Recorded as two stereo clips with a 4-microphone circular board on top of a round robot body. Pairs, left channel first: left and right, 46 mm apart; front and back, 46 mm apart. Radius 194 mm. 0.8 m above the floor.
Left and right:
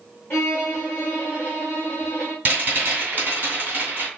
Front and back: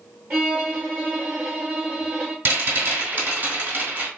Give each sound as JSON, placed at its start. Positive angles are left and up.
{"t": 0.3, "sound": "a violin", "azimuth_deg": 160, "distance_m": 0.5}
{"t": 2.5, "sound": "a rattle", "azimuth_deg": -140, "distance_m": 1.9}